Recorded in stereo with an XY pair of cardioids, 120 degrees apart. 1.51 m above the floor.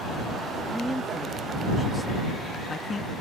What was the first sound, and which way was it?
A man speaking, 5° right.